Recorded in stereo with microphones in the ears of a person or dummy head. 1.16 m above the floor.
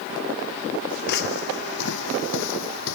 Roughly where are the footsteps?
Left.